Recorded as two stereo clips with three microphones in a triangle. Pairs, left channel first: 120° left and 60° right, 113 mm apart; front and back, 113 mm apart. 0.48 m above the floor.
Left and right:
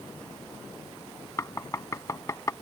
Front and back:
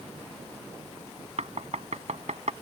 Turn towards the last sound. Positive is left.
turn(degrees=180)